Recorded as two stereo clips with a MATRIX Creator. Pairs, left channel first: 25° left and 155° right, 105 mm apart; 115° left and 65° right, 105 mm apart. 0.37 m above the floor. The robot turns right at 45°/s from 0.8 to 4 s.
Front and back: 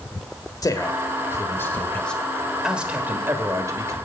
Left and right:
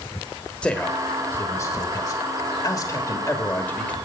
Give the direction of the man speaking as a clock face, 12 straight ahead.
11 o'clock.